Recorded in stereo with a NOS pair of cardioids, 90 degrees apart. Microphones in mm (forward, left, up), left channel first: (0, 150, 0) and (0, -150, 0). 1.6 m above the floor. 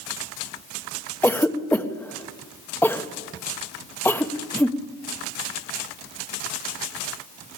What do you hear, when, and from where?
1.2 s a cough: 5° left, 1.2 m